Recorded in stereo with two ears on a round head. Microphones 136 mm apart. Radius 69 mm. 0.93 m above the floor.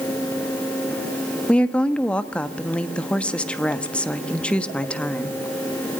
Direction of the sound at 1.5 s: 5° left (ahead or behind).